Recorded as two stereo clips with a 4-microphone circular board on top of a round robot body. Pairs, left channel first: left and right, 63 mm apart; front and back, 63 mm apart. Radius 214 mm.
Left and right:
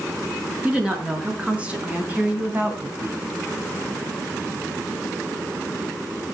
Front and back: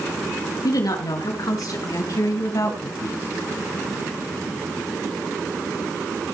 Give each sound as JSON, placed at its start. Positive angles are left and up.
{"t": 0.6, "sound": "a woman speaking", "azimuth_deg": -15, "distance_m": 5.5}